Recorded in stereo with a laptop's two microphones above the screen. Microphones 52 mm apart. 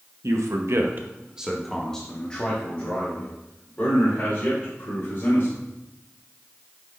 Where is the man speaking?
80° right, 0.8 m; by 5.6 s 40° left (ahead or behind), 3.5 m.